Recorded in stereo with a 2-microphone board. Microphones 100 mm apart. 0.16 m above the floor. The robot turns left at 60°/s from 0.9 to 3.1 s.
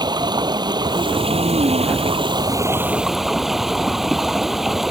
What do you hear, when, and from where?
0.0 s running water: 45° right; by 4.9 s 175° right